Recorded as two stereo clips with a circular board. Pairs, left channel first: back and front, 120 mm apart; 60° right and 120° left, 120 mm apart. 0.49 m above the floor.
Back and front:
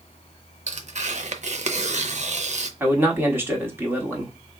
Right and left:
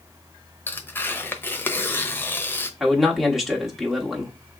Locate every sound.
0.7 s tearing paper: 10° left, 0.7 m
2.8 s a man speaking: 40° left, 1.2 m